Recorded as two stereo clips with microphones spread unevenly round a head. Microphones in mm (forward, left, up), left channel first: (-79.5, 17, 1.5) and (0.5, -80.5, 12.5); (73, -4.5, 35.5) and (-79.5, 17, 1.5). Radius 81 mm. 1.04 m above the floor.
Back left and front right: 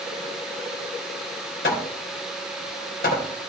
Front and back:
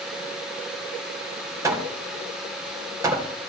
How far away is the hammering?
About 2.5 m.